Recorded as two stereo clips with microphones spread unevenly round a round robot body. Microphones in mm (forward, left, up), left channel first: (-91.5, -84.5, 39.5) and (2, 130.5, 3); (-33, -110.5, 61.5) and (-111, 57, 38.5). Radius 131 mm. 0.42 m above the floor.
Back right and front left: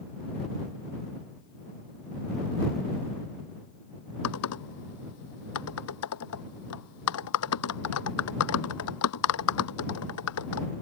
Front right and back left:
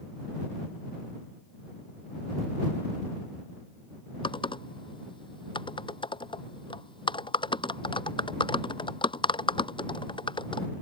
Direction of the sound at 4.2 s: 130° right.